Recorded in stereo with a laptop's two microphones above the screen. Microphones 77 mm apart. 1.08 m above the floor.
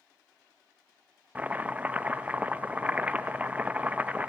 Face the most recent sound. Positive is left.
turn(degrees=-20)  # may be behind; listen again after turning